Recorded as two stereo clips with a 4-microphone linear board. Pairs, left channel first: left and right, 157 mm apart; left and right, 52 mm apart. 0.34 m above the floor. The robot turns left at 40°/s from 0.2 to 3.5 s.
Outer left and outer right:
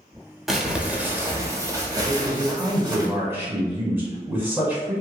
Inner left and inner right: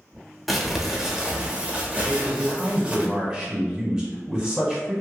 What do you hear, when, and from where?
0.5 s crumpling: centre (ahead or behind), 0.6 m; by 3.1 s 25° right (ahead or behind), 0.6 m
2.1 s a man speaking: 25° right (ahead or behind), 1.2 m; by 5.0 s 15° right (ahead or behind), 1.2 m